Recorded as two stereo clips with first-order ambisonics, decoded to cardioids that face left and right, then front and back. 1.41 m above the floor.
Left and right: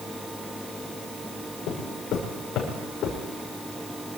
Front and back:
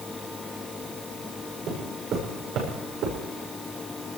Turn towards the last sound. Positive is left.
turn(degrees=145)